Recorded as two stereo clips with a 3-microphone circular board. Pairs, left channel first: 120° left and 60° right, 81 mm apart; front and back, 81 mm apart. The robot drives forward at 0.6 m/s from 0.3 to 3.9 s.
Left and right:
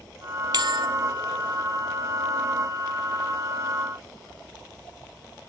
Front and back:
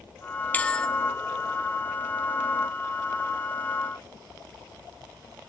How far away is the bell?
About 1.2 m.